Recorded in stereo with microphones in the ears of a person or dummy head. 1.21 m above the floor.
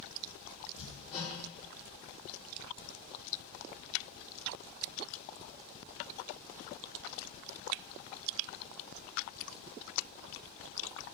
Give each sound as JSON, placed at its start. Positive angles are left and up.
{"t": 0.8, "sound": "hammering", "side_deg": 40, "distance_m": 3.5}